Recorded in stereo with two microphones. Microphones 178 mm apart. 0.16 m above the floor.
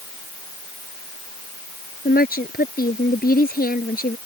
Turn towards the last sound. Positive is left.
turn(degrees=55)  # may be behind; listen again after turning